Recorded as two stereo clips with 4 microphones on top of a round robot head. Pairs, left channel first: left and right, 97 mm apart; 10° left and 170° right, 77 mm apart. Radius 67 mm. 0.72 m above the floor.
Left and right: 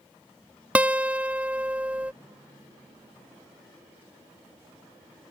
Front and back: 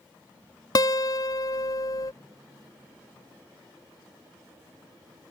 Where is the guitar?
15° right.